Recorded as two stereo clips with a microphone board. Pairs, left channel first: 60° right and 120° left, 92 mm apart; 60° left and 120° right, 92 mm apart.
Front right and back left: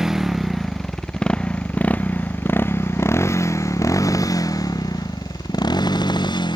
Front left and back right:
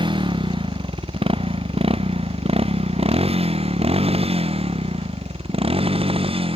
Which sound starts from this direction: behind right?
A motorcycle, at 0.0 s.